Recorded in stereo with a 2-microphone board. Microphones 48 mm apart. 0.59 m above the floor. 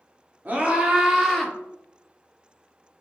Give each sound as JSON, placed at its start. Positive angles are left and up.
{"t": 0.5, "sound": "a scream", "side_deg": -35, "distance_m": 1.4}